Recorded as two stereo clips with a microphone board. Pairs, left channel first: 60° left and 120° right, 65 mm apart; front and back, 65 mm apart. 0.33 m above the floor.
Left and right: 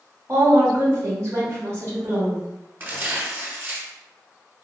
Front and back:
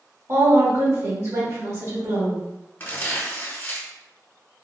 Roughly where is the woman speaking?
Behind right.